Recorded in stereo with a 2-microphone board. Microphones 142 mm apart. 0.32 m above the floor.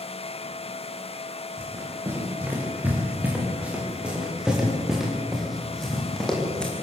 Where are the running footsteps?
15° right (ahead or behind), 9 m; by 6.7 s 5° left (ahead or behind), 7 m.